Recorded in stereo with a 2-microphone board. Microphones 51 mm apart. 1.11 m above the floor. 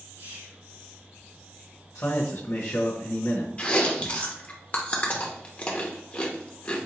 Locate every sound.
0.2 s whispering: 80° right, 2.5 m
1.9 s a man speaking: 65° left (ahead or behind), 1.0 m
3.6 s chewing: 25° left (ahead or behind), 0.8 m